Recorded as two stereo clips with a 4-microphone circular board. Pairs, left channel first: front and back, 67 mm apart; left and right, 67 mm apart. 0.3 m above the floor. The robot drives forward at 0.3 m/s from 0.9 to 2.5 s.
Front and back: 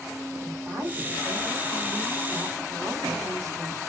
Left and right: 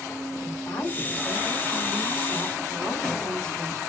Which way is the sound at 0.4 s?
150° left.